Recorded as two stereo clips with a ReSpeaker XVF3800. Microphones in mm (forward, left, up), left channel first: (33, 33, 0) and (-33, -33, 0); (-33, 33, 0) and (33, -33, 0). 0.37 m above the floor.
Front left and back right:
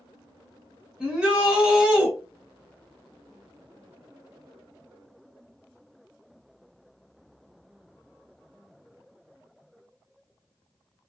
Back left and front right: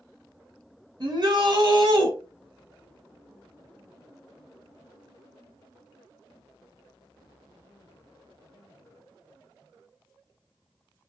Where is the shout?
55° right, 2.0 m.